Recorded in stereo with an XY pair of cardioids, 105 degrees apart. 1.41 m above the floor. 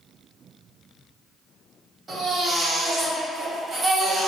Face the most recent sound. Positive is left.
turn(degrees=-40)